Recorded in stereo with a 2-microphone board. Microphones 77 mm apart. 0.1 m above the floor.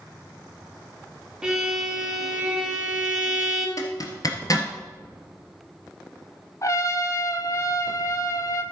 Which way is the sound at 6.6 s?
40° left (ahead or behind).